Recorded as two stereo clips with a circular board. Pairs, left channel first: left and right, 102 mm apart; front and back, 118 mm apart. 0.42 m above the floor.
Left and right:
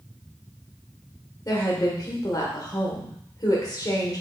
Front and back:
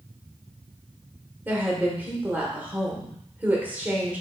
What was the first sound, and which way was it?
A woman speaking, 115° left.